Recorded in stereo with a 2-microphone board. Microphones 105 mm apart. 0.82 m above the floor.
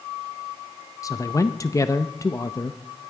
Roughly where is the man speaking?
Left.